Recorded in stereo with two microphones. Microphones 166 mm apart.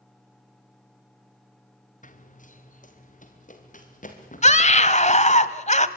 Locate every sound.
2.0 s running footsteps: 55° left (ahead or behind), 2 m
4.4 s a scream: 50° left (ahead or behind), 1.4 m